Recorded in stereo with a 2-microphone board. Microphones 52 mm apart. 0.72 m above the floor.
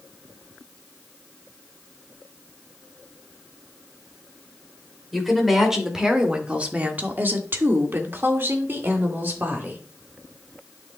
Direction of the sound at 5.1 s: 5° right (ahead or behind).